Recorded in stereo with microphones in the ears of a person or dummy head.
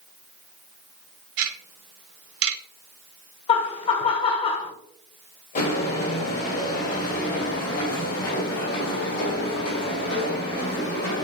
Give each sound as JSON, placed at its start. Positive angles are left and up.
{"t": 1.4, "sound": "ticking", "side_deg": -75, "distance_m": 1.0}
{"t": 3.5, "sound": "laughter", "side_deg": 30, "distance_m": 1.2}
{"t": 5.5, "sound": "footsteps", "side_deg": 50, "distance_m": 3.5}